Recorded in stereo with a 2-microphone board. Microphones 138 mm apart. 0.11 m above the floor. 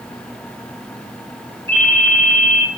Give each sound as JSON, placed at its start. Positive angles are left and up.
{"t": 1.7, "sound": "a ringtone", "side_deg": 20, "distance_m": 2.5}